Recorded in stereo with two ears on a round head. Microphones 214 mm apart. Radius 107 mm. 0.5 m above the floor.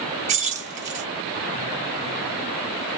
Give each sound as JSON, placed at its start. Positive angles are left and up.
{"t": 0.3, "sound": "keys jangling", "side_deg": -30, "distance_m": 0.9}